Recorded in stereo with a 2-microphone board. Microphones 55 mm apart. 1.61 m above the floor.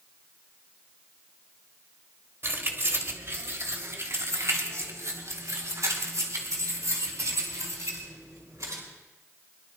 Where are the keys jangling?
50° right (ahead or behind), 2 m; by 8.8 s 85° right, 5 m.